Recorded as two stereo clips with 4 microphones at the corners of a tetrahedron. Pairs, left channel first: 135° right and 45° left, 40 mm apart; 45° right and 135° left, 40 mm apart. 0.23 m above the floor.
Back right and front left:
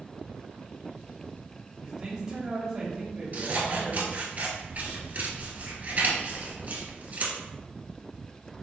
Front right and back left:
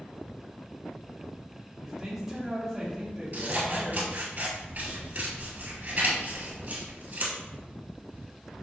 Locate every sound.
1.8 s a man speaking: 80° left, 1.0 m
3.3 s scissors: 95° left, 1.3 m